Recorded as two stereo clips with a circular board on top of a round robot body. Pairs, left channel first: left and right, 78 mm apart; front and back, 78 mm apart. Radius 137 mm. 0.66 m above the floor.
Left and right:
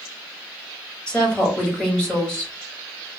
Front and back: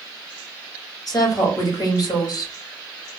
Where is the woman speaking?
15° left, 1.8 m.